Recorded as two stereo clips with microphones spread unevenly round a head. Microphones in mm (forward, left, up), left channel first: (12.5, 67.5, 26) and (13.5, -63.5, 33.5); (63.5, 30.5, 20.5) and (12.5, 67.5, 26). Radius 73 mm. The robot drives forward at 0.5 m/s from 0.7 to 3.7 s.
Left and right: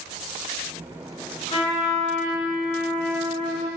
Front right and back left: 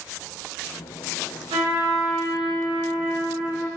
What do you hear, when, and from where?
1.5 s a trumpet: 145° left, 0.8 m; by 3.7 s 165° left, 1.8 m